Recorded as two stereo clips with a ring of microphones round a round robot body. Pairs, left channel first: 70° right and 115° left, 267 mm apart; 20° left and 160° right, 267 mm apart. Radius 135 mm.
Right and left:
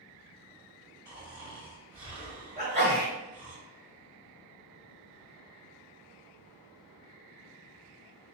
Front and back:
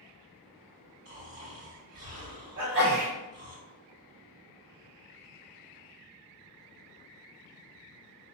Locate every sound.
1.1 s snoring: straight behind, 2.0 m
2.6 s a sneeze: 175° left, 1.6 m